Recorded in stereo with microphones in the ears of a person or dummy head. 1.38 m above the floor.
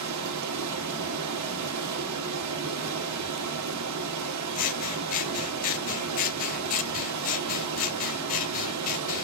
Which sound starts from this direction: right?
Running water, at 0.0 s.